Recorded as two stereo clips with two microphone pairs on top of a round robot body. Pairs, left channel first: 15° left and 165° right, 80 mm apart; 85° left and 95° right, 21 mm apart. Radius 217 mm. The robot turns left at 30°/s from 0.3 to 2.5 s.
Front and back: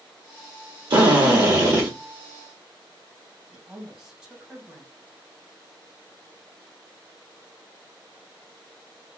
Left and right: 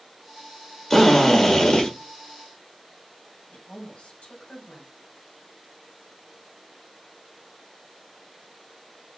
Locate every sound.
0.9 s a drill: 165° left, 1.6 m; by 1.9 s 135° left, 1.6 m
3.5 s a woman speaking: 115° left, 2 m